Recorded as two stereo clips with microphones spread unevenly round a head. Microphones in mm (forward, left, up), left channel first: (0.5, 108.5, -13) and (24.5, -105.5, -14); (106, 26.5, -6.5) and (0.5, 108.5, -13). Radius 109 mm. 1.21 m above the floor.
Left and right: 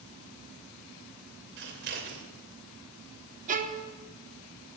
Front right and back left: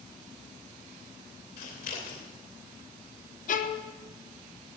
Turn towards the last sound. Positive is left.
turn(degrees=-35)